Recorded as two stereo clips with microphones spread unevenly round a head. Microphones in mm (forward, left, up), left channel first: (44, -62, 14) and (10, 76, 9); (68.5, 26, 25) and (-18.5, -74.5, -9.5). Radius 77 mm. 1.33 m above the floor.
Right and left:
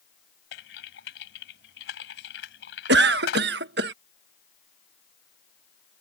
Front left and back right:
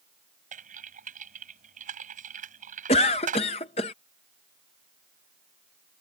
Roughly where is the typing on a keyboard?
Right.